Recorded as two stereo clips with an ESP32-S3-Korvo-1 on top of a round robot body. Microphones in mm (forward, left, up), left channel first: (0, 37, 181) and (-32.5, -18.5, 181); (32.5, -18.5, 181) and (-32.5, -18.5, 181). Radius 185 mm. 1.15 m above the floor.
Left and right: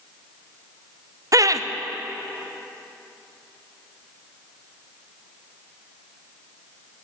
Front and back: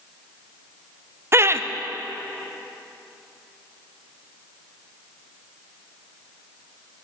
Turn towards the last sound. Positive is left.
turn(degrees=-135)